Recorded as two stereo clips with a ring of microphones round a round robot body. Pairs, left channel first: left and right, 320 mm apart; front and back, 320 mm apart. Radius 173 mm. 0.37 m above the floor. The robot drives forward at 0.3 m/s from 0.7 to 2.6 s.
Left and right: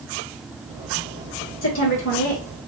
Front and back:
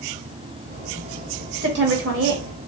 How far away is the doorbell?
I don't hear a doorbell.